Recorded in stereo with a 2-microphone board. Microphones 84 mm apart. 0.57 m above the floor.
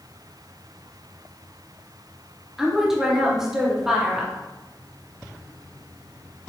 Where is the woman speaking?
5° right (ahead or behind), 0.7 m.